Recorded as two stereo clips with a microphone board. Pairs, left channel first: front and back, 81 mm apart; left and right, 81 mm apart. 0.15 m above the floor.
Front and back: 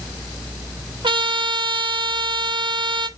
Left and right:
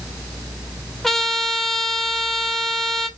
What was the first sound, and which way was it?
A trumpet, 175° left.